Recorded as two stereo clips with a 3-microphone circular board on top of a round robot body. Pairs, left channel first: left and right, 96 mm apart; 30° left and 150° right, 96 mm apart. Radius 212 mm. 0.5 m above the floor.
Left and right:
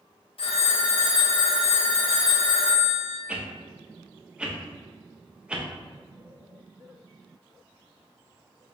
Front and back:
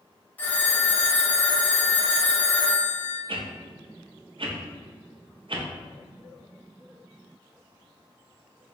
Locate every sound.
0.4 s a phone ringing: 100° left, 0.8 m
3.3 s a whoosh: 170° right, 0.7 m